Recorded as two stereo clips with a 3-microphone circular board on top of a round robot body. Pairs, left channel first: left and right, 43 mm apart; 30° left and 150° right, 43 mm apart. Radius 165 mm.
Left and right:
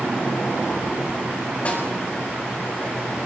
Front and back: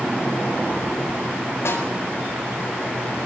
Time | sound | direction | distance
1.6 | a snare drum | 30° left | 8 m